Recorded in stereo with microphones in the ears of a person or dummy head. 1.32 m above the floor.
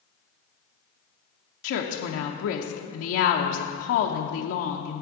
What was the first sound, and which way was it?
A woman speaking, 70° left (ahead or behind).